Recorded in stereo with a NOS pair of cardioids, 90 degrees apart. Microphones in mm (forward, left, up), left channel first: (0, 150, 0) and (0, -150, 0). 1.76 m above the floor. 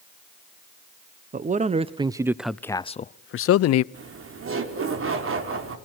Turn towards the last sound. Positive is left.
turn(degrees=-45)